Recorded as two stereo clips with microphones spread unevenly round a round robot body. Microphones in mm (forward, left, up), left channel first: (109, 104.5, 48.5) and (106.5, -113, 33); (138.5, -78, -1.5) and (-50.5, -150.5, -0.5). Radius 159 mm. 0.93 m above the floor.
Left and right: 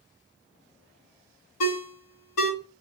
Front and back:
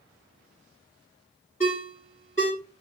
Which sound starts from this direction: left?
A ringtone, at 1.6 s.